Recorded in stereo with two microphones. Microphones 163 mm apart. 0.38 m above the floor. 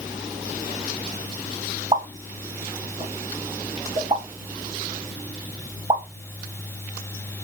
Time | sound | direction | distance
1.9 | a pop | 40° right (ahead or behind) | 0.5 m